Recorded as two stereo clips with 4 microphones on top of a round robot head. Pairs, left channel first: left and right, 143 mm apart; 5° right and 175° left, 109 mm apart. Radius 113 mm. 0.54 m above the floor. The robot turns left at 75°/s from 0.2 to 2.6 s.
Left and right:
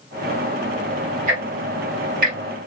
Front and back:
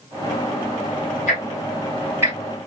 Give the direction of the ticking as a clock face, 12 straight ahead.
1 o'clock.